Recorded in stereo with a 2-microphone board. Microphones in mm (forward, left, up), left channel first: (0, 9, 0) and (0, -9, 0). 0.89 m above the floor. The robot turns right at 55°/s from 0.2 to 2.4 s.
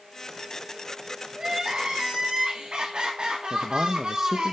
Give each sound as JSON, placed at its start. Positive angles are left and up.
{"t": 1.4, "sound": "crying", "azimuth_deg": -140, "distance_m": 1.9}
{"t": 3.5, "sound": "a man speaking", "side_deg": -20, "distance_m": 0.6}